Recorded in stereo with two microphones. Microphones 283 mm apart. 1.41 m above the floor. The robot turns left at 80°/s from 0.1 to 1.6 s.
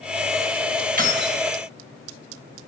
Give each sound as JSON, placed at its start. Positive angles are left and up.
{"t": 1.0, "sound": "keys jangling", "azimuth_deg": -45, "distance_m": 0.8}